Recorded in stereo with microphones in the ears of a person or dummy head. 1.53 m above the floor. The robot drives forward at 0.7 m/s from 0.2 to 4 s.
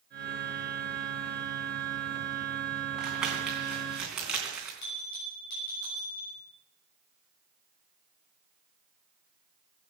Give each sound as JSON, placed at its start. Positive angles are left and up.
{"t": 3.0, "sound": "crumpling", "side_deg": -5, "distance_m": 3.5}
{"t": 4.8, "sound": "a bell", "side_deg": 55, "distance_m": 7.5}